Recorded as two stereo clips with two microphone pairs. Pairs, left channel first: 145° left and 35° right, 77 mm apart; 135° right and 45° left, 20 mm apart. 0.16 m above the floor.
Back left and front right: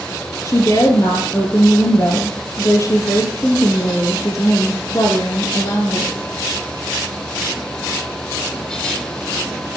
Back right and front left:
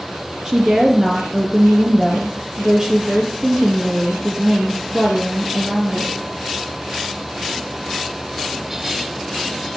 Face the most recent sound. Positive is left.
turn(degrees=100)